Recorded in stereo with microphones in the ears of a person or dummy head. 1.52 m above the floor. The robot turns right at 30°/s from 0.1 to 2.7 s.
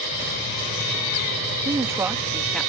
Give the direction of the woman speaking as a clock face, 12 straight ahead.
1 o'clock.